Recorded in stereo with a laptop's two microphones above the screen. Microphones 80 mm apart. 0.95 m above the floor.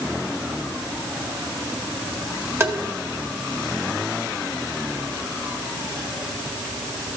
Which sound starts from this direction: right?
Tapping, at 2.6 s.